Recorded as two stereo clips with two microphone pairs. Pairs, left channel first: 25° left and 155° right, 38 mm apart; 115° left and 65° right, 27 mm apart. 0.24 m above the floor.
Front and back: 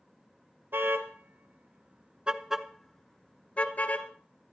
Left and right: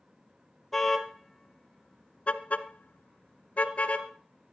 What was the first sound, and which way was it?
A car horn, 175° right.